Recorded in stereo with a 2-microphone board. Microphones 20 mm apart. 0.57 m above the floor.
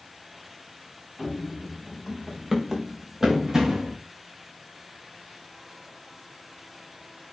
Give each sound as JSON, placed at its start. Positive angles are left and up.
{"t": 1.2, "sound": "running footsteps", "side_deg": 0, "distance_m": 6.5}